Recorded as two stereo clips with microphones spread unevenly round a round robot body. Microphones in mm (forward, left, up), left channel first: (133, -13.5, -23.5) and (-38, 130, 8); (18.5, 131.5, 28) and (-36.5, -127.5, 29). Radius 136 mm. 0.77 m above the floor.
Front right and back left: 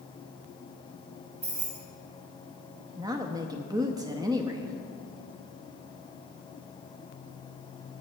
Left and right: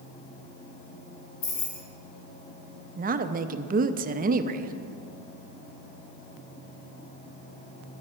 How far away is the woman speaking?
About 0.5 m.